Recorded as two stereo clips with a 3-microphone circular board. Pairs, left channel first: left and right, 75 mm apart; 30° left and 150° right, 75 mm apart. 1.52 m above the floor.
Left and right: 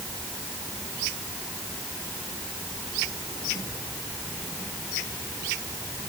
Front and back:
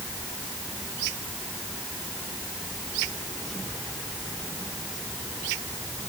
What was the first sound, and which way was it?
Only background noise.